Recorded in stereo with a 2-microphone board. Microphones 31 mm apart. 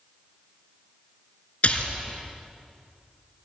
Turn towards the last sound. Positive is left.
turn(degrees=50)  # may be behind; listen again after turning